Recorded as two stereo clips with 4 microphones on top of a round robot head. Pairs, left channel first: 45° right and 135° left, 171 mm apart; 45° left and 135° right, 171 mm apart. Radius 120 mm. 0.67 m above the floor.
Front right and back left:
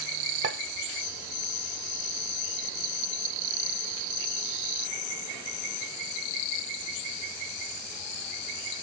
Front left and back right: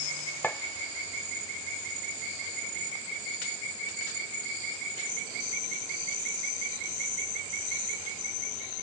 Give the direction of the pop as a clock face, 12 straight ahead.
8 o'clock.